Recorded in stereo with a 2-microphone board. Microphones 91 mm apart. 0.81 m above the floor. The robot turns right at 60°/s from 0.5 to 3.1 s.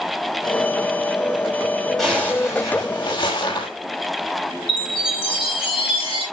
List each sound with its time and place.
2.0 s a zipper: straight ahead, 6 m; by 3.7 s 70° left, 6 m
4.7 s a chime: 85° left, 8 m